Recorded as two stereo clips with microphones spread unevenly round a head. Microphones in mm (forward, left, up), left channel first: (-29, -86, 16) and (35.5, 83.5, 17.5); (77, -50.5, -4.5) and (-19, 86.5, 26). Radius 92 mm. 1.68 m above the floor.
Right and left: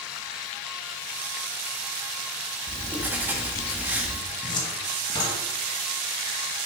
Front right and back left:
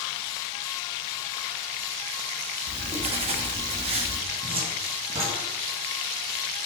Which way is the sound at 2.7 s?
145° left.